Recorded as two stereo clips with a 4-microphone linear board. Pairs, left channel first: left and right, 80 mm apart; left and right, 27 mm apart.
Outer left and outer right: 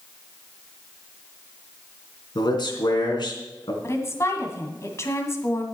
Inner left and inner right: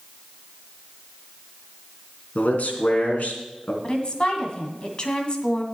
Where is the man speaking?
70° left (ahead or behind), 3 m.